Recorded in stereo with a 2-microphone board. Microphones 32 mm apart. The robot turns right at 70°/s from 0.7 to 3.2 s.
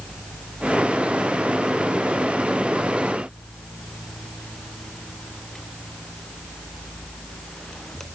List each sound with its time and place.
Only background noise.